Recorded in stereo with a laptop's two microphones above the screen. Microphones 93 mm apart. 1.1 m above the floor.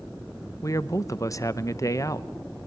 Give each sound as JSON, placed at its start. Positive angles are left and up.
{"t": 0.6, "sound": "a man speaking", "side_deg": 35, "distance_m": 0.8}